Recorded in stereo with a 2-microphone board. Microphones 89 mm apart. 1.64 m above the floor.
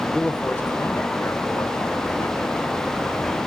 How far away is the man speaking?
About 0.9 m.